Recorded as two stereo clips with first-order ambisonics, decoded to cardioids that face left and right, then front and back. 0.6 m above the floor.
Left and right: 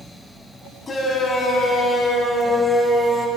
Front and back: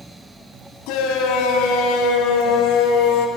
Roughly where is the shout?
Ahead.